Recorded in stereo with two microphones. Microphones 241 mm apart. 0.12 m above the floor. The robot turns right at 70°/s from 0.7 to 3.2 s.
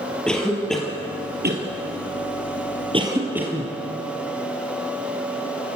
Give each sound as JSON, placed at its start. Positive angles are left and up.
{"t": 0.3, "sound": "a cough", "side_deg": 5, "distance_m": 2.5}